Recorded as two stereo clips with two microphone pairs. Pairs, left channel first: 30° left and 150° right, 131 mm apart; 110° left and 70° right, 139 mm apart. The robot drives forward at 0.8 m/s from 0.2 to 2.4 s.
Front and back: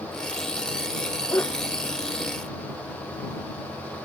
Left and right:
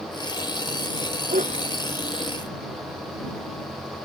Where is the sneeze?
40° right.